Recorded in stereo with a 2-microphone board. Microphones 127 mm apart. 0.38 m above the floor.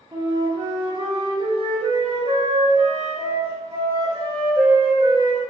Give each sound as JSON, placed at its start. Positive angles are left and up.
{"t": 0.1, "sound": "a flute", "side_deg": -40, "distance_m": 0.8}